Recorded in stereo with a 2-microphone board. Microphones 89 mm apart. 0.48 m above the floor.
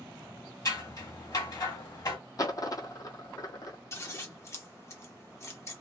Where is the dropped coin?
45° left (ahead or behind), 0.6 m.